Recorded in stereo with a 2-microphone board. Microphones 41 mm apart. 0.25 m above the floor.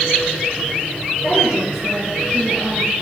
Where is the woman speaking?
25° right (ahead or behind), 6.5 m.